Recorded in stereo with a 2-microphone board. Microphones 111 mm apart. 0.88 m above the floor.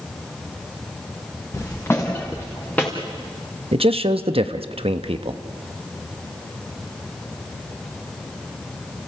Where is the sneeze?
I don't hear a sneeze.